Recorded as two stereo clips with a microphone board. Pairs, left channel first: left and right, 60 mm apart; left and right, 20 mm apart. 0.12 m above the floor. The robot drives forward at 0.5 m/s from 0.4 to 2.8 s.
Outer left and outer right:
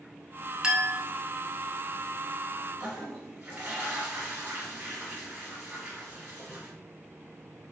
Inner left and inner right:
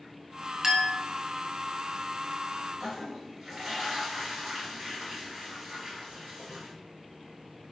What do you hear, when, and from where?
0.6 s a clink: 15° right (ahead or behind), 0.6 m
2.8 s a toilet flushing: 30° right (ahead or behind), 1.6 m